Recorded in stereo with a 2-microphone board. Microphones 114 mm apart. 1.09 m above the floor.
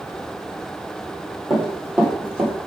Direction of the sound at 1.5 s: Centre (ahead or behind).